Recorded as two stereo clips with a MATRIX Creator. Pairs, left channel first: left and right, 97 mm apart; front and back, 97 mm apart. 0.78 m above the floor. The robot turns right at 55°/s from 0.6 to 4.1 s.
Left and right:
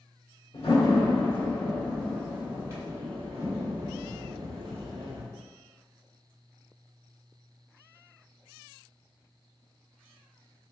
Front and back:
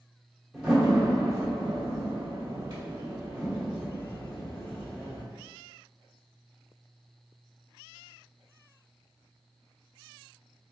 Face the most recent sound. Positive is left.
turn(degrees=-70)